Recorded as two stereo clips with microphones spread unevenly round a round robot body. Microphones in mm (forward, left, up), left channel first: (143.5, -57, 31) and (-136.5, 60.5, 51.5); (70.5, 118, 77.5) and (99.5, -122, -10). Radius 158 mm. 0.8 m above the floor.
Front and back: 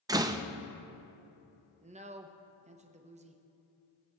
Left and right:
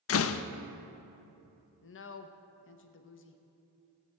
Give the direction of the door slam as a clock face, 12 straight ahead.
9 o'clock.